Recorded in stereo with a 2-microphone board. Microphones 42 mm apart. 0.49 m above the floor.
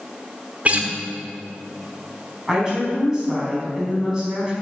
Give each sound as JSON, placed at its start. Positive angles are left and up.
{"t": 0.7, "sound": "a guitar", "side_deg": -40, "distance_m": 1.2}
{"t": 2.5, "sound": "a woman speaking", "side_deg": -15, "distance_m": 4.0}